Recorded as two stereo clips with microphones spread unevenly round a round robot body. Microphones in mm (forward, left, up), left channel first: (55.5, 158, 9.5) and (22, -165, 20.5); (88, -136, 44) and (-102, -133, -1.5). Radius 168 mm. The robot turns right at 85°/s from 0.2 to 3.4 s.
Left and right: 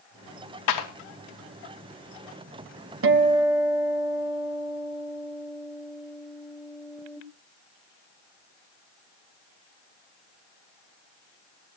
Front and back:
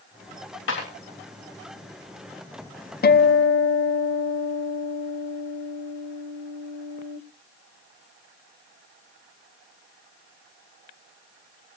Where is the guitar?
45° right, 1.0 m; by 7.2 s 10° right, 1.0 m.